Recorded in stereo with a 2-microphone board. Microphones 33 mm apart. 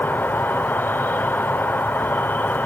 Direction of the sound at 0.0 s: 85° left.